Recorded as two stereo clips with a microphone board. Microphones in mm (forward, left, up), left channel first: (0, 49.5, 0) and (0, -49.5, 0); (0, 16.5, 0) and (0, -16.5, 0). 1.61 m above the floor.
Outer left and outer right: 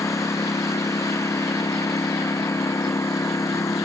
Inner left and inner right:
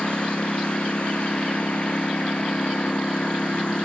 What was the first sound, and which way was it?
A lawn mower, 30° left (ahead or behind).